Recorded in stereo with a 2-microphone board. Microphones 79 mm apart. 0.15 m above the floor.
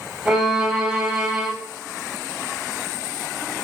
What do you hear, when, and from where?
0.2 s a violin: 10° right (ahead or behind), 4.5 m